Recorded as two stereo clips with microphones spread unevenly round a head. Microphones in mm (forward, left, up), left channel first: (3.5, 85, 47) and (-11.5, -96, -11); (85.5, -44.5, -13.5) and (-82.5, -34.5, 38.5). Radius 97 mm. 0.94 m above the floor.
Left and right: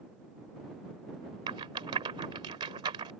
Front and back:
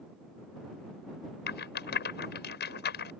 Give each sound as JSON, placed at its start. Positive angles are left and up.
{"t": 1.5, "sound": "a rattle", "azimuth_deg": -25}